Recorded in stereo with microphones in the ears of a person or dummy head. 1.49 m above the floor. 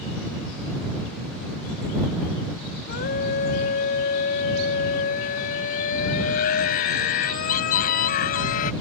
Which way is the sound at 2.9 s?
50° left (ahead or behind).